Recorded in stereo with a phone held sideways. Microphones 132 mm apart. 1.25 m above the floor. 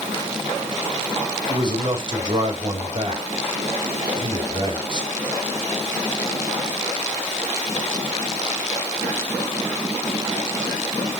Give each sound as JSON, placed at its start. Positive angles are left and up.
{"t": 1.5, "sound": "a man speaking", "side_deg": -40, "distance_m": 4.0}